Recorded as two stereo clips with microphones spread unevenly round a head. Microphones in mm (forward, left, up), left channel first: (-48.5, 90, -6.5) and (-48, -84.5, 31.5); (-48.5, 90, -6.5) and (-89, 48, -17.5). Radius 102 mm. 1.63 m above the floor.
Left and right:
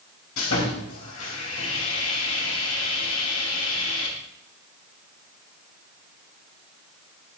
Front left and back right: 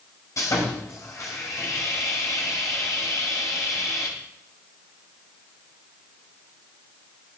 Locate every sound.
0.4 s sawing: 65° left, 4 m